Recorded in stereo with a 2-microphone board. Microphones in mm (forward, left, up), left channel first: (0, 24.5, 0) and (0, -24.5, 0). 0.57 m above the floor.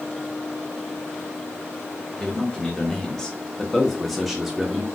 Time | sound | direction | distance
2.2 | a man speaking | 15° left (ahead or behind) | 1.2 m